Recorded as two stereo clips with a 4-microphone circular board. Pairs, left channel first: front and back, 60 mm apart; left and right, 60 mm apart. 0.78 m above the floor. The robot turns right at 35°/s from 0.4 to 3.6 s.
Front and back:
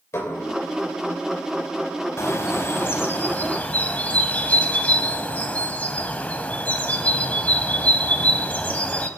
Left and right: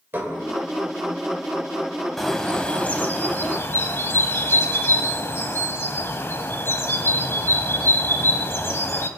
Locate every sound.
0.1 s dishes clattering: 35° right, 2.5 m
2.2 s a bird: 5° left, 0.9 m; by 9.1 s 55° left, 0.9 m